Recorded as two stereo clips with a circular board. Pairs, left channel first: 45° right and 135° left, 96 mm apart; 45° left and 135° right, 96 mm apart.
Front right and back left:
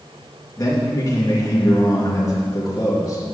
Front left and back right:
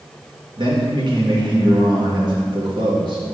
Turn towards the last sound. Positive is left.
turn(degrees=-100)